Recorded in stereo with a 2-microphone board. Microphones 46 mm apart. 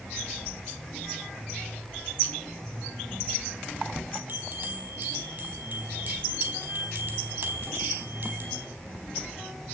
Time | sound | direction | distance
4.3 | a bell | 45° right (ahead or behind) | 4 m